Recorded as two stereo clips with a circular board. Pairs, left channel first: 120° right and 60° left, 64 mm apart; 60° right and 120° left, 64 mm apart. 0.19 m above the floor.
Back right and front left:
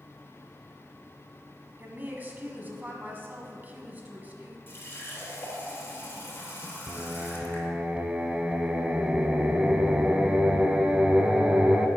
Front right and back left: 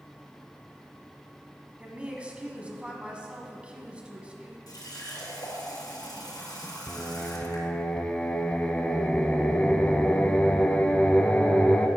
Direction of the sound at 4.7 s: 65° right.